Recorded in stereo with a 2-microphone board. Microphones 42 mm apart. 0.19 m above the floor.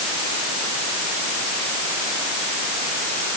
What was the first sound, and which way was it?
Only background noise.